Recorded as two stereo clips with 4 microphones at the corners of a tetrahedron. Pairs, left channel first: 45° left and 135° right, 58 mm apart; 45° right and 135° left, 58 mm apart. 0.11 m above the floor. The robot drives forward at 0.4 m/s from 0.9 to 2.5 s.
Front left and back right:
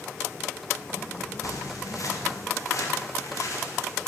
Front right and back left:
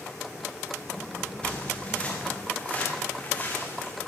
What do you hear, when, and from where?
1.4 s footsteps: 25° left, 4 m; by 3.9 s 15° left, 5 m